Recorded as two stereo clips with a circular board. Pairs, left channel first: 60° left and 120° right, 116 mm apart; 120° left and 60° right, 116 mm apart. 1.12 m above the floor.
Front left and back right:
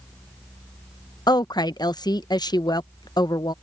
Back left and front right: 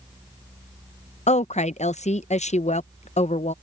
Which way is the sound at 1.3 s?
110° left.